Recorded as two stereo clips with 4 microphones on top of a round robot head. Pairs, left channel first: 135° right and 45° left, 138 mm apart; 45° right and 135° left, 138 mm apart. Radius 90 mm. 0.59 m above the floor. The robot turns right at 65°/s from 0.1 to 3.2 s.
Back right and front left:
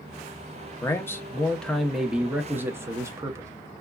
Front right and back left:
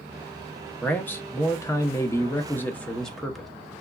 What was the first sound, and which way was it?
A man speaking, 110° right.